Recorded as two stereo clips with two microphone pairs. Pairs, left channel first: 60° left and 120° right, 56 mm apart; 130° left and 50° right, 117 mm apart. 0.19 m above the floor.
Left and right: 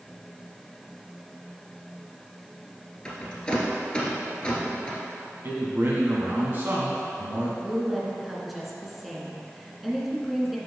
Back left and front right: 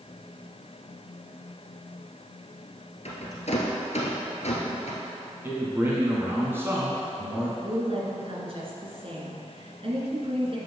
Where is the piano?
I don't hear a piano.